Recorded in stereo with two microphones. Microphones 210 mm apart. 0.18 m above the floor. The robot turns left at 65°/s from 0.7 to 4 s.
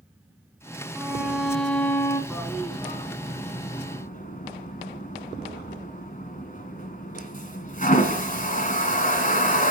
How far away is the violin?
About 1.3 m.